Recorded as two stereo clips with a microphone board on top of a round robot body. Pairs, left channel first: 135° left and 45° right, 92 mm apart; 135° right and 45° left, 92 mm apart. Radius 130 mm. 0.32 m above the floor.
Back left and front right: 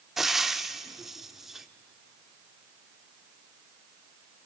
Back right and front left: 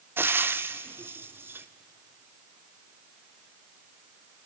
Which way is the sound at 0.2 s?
40° left.